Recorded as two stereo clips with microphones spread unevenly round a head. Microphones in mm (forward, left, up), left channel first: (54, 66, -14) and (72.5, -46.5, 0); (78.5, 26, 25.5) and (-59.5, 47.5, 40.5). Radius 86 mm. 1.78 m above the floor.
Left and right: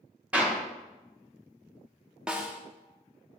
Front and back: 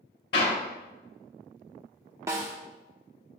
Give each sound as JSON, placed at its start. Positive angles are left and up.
{"t": 0.3, "sound": "a clap", "azimuth_deg": -5, "distance_m": 1.8}
{"t": 2.3, "sound": "a snare drum", "azimuth_deg": -145, "distance_m": 0.5}